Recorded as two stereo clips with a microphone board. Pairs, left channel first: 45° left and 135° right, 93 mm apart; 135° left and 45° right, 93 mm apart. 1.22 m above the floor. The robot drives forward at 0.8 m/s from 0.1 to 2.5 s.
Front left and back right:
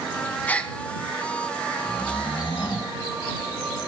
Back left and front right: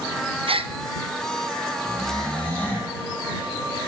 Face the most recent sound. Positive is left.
turn(degrees=60)